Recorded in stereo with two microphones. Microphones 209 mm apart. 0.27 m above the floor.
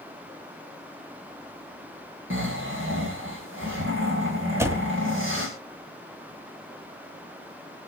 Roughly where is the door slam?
Centre.